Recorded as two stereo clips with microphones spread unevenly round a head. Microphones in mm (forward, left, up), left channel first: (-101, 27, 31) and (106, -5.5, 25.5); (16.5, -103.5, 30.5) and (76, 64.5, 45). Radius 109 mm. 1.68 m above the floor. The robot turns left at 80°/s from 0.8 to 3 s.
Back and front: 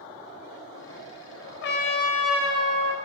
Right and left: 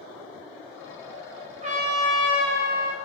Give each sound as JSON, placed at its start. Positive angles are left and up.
{"t": 1.6, "sound": "a trumpet", "azimuth_deg": 135, "distance_m": 0.8}